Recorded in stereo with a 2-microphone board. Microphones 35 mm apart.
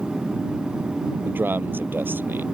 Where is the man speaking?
75° right (ahead or behind).